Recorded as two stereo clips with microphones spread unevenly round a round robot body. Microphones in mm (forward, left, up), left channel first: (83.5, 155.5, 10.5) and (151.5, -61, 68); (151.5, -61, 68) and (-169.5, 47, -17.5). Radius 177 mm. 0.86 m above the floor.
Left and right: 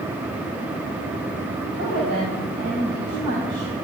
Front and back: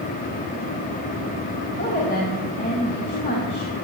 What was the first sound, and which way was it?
A woman speaking, 85° right.